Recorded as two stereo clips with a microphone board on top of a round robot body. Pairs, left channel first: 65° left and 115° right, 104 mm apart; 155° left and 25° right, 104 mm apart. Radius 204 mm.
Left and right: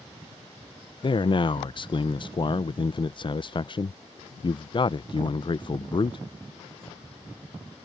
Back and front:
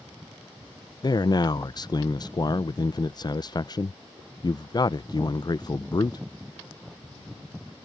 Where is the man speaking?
110° left.